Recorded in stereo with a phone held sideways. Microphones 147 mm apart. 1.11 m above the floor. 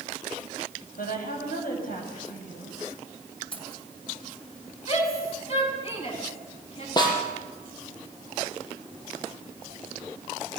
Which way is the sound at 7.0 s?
30° left (ahead or behind).